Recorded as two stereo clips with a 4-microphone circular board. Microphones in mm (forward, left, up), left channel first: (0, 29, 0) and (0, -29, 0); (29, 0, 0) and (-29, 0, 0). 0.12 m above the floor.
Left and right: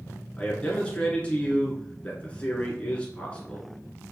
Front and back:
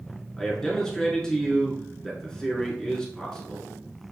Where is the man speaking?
65° left, 1.2 m.